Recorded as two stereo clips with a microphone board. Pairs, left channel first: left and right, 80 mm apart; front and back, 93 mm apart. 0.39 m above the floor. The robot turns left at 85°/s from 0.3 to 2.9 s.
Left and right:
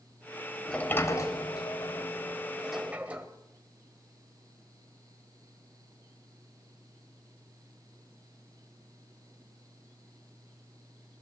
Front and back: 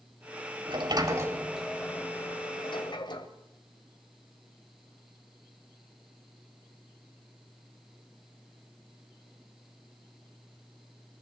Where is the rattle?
No rattle in this recording.